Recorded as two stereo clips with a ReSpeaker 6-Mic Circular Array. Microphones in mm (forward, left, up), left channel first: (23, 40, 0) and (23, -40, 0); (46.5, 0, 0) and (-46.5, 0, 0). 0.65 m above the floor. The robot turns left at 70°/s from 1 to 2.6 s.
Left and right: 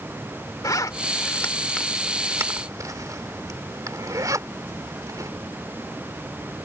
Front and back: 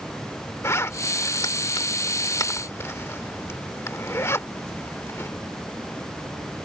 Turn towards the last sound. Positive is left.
turn(degrees=-55)